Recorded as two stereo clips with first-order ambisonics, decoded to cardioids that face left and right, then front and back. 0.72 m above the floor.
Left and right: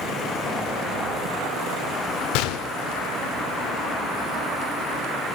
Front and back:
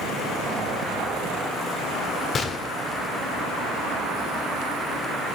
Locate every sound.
2.3 s a gunshot: 70° left, 0.9 m